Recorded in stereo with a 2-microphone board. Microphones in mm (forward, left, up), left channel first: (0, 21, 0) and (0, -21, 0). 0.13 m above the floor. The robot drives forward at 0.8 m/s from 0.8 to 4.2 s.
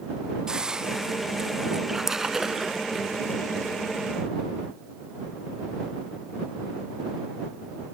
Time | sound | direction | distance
0.5 | a hiss | 20° right (ahead or behind) | ?
1.9 | a splash | 10° right (ahead or behind) | ?